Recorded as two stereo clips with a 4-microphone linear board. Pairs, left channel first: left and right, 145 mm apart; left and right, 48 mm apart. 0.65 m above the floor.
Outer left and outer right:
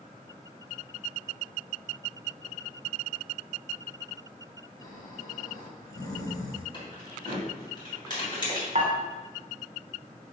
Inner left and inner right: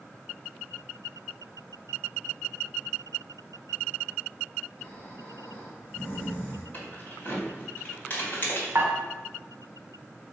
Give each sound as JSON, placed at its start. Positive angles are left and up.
{"t": 4.8, "sound": "snoring", "side_deg": 25, "distance_m": 1.9}
{"t": 6.7, "sound": "keys jangling", "side_deg": 35, "distance_m": 3.0}
{"t": 8.8, "sound": "dishes clattering", "side_deg": -55, "distance_m": 1.3}